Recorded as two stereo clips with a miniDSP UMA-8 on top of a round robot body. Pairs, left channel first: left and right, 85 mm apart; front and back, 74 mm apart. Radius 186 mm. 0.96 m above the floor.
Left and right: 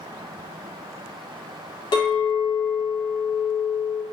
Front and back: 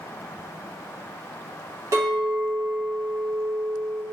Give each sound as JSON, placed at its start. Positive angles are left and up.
{"t": 1.9, "sound": "a clink", "azimuth_deg": 130, "distance_m": 0.6}